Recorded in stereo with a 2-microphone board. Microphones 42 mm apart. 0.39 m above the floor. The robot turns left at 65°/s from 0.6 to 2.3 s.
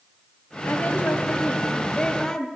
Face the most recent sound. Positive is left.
turn(degrees=5)